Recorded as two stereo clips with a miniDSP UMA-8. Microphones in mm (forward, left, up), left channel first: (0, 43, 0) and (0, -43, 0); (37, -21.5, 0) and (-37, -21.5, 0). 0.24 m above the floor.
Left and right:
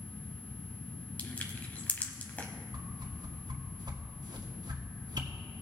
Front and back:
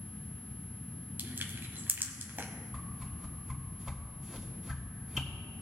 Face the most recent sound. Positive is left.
turn(degrees=-95)